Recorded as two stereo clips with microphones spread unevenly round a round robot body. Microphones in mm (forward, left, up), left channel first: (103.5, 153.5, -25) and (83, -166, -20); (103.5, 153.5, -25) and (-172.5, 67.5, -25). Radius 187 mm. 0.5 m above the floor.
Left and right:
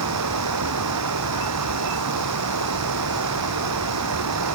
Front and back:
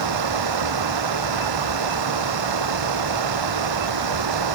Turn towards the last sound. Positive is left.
turn(degrees=-145)